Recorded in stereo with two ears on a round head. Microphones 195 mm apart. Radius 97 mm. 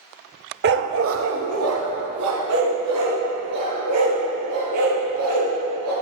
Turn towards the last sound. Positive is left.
turn(degrees=-90)